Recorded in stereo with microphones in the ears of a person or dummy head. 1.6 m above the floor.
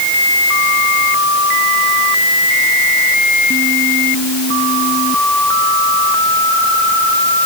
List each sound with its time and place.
Only background noise.